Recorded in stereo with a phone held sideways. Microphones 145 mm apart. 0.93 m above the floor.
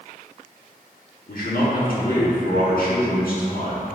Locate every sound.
1.3 s a man speaking: 75° left (ahead or behind), 1.6 m